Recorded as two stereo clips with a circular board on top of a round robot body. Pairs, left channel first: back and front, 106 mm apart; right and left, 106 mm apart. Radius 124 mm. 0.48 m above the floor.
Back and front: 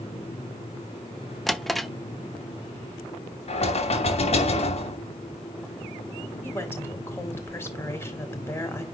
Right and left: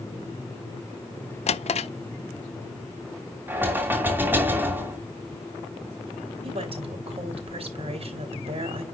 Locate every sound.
1.5 s a drawer: 90° right, 0.8 m
3.5 s knocking: 160° left, 2.5 m
6.4 s a woman speaking: 110° left, 4 m